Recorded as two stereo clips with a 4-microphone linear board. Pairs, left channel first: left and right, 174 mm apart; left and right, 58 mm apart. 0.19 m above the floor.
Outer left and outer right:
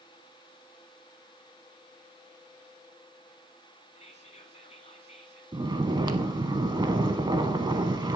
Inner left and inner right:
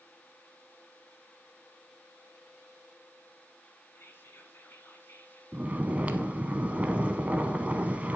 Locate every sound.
4.0 s whispering: 40° left (ahead or behind), 1.6 m
5.5 s snoring: 25° right (ahead or behind), 0.7 m